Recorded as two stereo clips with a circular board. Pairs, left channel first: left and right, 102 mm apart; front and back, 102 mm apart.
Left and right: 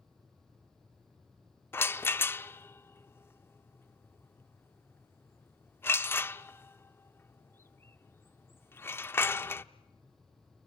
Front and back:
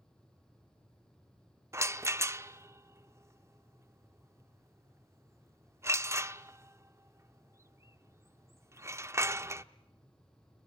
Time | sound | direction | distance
1.7 | a rattle | 140° left | 0.6 m